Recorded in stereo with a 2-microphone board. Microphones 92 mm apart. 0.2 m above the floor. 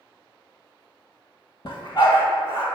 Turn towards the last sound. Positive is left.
turn(degrees=55)  # may be behind; listen again after turning